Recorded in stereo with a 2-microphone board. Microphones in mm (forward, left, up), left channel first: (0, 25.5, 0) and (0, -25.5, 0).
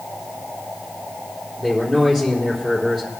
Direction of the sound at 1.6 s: 10° left (ahead or behind).